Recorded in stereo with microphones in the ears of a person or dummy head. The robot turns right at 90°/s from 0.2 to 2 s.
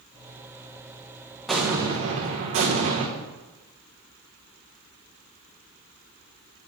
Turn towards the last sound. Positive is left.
turn(degrees=-130)